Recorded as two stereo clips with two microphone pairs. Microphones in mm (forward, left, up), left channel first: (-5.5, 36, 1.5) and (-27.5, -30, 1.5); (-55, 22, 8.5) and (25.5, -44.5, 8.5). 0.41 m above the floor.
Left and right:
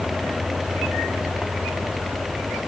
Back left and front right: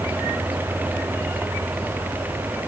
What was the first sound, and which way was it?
Only background noise.